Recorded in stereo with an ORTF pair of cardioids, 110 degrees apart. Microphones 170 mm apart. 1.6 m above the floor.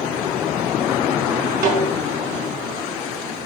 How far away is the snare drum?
About 5.5 m.